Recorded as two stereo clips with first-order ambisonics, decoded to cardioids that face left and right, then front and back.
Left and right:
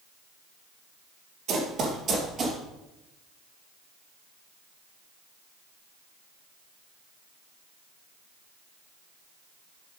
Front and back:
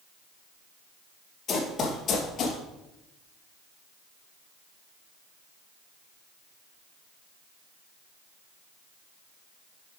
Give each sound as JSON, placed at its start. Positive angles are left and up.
{"t": 1.5, "sound": "running footsteps", "azimuth_deg": -60, "distance_m": 2.0}